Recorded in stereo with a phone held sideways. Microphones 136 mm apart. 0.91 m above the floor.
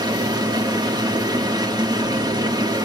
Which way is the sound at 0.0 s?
30° right (ahead or behind).